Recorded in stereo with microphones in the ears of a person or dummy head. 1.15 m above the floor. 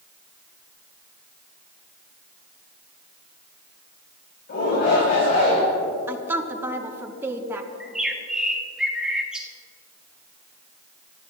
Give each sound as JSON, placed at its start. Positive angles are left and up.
{"t": 4.5, "sound": "a shout", "side_deg": 45, "distance_m": 5.0}
{"t": 6.1, "sound": "a woman speaking", "side_deg": -10, "distance_m": 1.3}
{"t": 7.8, "sound": "a bird", "side_deg": -10, "distance_m": 1.3}